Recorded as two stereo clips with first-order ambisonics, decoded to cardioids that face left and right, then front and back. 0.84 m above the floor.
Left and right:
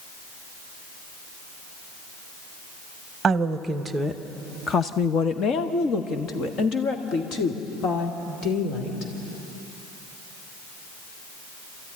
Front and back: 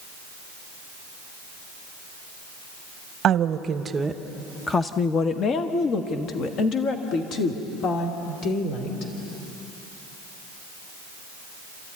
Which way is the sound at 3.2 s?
150° right.